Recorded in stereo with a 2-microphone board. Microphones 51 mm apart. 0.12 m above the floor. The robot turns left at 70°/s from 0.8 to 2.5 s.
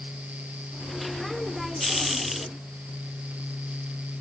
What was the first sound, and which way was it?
Only background noise.